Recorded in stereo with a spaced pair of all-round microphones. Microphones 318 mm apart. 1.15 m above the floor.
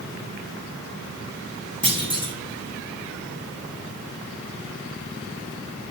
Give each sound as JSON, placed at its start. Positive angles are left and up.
{"t": 1.8, "sound": "a clunk", "side_deg": -15, "distance_m": 1.4}